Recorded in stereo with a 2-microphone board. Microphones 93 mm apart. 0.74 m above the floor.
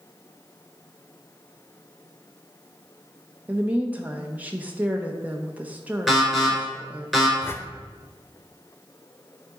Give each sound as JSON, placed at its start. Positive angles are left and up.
{"t": 3.5, "sound": "a woman speaking", "side_deg": -15, "distance_m": 0.7}
{"t": 6.1, "sound": "an alarm", "side_deg": 0, "distance_m": 4.0}
{"t": 7.4, "sound": "a whoosh", "side_deg": 25, "distance_m": 0.5}